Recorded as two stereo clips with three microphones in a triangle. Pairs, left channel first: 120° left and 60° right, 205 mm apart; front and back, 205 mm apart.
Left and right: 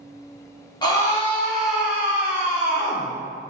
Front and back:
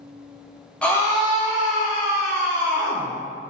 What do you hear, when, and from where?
0.8 s a scream: 80° left, 1.0 m; by 3.1 s 10° left, 2.5 m